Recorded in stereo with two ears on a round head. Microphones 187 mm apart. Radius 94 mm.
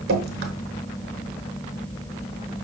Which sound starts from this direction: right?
Dripping, at 0.1 s.